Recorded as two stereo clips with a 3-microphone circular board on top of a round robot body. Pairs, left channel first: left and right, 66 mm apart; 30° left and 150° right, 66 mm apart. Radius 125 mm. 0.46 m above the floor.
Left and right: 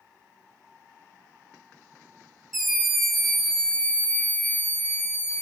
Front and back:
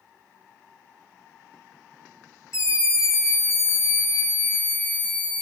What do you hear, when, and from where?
2.5 s a scream: 5° right, 2.0 m; by 5.4 s 95° left, 1.5 m